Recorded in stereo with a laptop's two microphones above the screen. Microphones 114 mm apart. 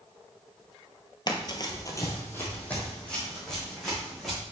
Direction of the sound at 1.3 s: 40° left (ahead or behind).